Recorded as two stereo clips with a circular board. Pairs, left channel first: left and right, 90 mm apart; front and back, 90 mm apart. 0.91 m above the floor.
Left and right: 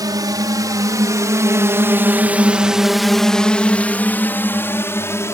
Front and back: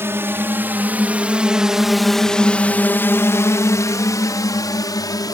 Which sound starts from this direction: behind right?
A drone, at 0.0 s.